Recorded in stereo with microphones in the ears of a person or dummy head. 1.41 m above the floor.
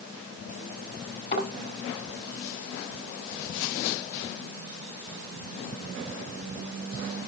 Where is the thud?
30° left (ahead or behind), 5.5 m.